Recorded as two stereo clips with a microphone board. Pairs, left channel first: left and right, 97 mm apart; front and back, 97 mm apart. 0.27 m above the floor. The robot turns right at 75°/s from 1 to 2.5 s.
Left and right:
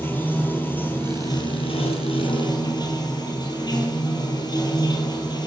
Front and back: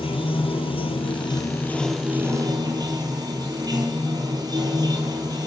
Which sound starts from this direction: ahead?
Running water, at 0.0 s.